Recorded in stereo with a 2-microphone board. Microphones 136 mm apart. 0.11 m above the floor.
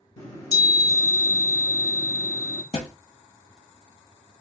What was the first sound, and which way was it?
A chime, 25° left (ahead or behind).